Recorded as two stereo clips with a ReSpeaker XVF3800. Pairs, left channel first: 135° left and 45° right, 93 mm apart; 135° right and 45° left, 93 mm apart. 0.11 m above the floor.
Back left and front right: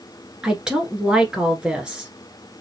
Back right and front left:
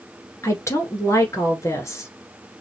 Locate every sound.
0.4 s a woman speaking: 120° right, 1.3 m